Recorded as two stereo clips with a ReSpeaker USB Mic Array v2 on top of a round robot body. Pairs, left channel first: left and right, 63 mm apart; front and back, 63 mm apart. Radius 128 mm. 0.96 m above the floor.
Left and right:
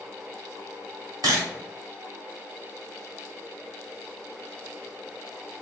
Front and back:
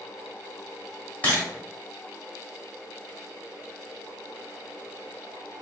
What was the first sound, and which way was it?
A camera shutter, 70° right.